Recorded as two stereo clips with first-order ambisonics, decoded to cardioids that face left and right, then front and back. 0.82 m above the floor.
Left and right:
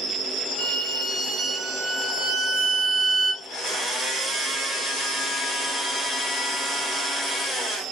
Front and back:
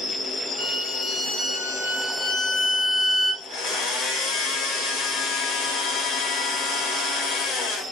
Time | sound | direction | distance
0.6 | a violin | 15° right | 1.1 m
3.4 | a blender | 25° left | 1.3 m